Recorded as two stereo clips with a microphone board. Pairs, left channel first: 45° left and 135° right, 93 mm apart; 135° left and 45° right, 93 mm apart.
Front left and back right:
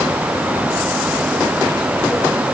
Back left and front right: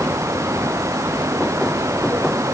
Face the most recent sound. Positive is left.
No sound to turn to.